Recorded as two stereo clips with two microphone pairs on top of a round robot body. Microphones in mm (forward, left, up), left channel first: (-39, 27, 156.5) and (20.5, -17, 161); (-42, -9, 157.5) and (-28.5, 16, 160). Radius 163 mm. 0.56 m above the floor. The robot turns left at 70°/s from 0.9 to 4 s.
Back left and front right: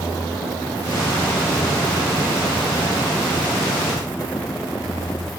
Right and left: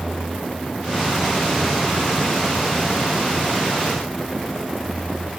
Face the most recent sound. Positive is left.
No sound to turn to.